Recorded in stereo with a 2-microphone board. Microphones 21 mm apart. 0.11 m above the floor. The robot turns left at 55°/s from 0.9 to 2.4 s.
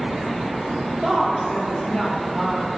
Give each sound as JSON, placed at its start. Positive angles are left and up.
{"t": 1.0, "sound": "a woman speaking", "azimuth_deg": 160, "distance_m": 2.5}